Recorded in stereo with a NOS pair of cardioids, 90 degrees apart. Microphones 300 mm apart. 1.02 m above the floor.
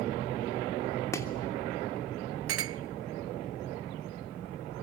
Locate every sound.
1.1 s chopping: 10° left, 3 m
2.5 s a clink: 50° right, 0.6 m